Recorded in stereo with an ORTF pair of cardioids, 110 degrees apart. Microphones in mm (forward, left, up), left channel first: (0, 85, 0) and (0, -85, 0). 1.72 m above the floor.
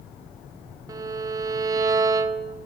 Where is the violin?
20° right, 0.7 m.